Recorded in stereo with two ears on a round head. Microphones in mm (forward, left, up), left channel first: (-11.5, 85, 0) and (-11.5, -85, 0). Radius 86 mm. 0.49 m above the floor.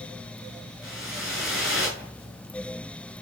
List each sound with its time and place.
0.8 s a whoosh: centre (ahead or behind), 8 m